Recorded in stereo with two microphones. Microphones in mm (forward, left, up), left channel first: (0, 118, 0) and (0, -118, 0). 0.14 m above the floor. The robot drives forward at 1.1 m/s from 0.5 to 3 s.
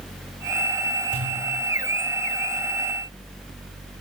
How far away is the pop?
About 9 m.